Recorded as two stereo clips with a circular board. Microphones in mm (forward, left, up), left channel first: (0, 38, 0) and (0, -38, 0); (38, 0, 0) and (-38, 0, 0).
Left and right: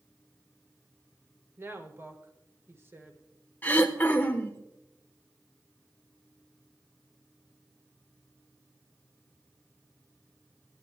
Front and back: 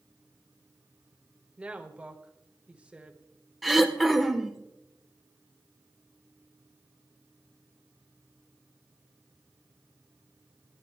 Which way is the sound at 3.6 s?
90° left.